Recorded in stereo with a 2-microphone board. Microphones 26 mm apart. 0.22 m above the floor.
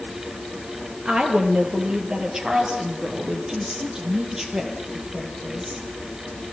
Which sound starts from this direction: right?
A woman speaking, at 1.1 s.